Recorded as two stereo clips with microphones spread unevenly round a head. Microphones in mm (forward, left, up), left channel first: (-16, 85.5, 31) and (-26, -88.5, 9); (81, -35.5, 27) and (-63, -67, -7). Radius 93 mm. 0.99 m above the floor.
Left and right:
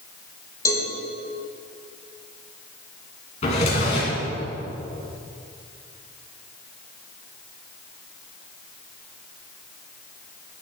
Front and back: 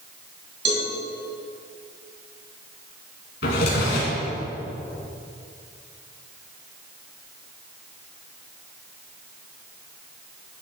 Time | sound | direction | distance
0.7 | a cowbell | 155° left | 2.5 m
3.4 | a drawer | 30° left | 2.5 m